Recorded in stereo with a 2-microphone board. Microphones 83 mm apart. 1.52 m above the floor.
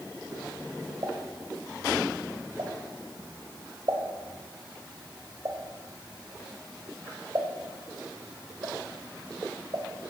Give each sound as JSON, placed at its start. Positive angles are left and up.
{"t": 1.0, "sound": "a pop", "side_deg": -50, "distance_m": 1.9}